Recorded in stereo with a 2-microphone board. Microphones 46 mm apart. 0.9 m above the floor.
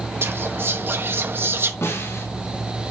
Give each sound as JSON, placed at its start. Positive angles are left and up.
{"t": 0.2, "sound": "whispering", "side_deg": -55, "distance_m": 0.7}
{"t": 1.8, "sound": "a snare drum", "side_deg": 85, "distance_m": 4.5}